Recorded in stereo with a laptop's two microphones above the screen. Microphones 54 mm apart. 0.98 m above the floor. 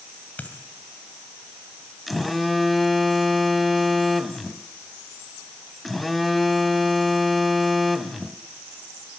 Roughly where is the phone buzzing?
Centre.